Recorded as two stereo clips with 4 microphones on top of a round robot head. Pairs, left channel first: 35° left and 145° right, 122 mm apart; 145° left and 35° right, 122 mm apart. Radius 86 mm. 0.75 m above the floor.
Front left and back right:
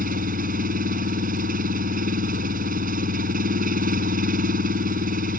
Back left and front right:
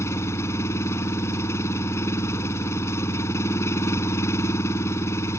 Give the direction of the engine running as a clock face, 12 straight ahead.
5 o'clock.